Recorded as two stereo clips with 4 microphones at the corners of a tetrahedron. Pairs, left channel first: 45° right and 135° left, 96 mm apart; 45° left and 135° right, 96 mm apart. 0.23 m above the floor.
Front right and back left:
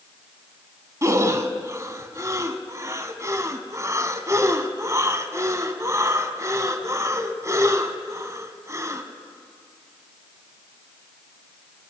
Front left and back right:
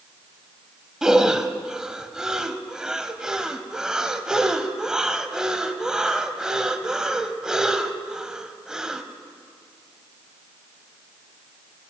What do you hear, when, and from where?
1.0 s breathing: 145° left, 0.8 m